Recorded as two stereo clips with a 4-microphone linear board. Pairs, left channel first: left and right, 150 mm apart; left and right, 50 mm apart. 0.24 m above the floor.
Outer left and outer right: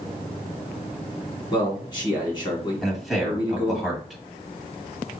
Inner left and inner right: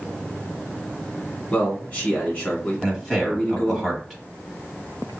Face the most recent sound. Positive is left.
turn(degrees=0)  # may be behind; listen again after turning